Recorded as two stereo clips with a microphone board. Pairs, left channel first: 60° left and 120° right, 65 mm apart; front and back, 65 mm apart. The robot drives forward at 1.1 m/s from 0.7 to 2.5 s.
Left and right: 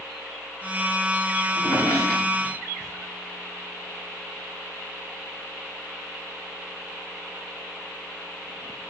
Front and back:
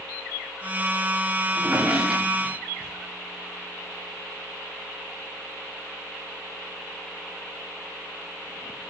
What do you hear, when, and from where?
1.5 s a drawer: 100° left, 6 m; by 2.9 s 110° left, 6.5 m